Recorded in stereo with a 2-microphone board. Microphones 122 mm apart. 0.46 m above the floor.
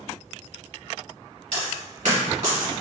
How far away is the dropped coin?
About 1.8 m.